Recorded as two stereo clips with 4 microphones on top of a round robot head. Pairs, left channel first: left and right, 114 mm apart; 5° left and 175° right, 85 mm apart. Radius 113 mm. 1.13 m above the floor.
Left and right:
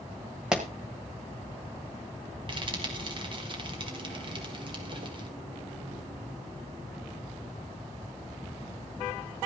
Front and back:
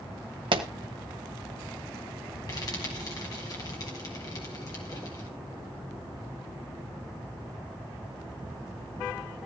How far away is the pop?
About 1.1 m.